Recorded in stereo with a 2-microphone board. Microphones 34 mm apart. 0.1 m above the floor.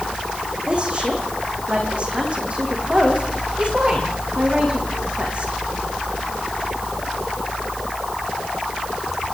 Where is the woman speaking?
35° right (ahead or behind), 6.5 m.